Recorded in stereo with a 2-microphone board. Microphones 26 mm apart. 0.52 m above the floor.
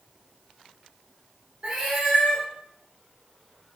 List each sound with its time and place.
1.6 s a cat meowing: 45° right (ahead or behind), 1.6 m